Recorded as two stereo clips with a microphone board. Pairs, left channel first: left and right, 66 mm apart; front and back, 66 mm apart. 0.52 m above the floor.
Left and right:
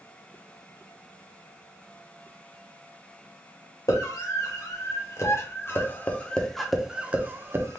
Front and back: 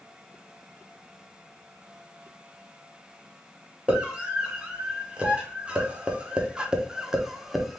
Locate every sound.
3.9 s a scream: 110° left, 1.8 m; by 7.8 s 95° right, 0.9 m